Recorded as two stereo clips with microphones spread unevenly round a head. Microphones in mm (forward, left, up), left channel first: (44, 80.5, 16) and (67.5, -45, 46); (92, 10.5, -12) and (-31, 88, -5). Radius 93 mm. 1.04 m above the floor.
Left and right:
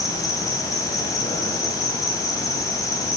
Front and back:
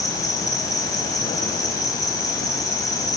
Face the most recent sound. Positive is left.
turn(degrees=30)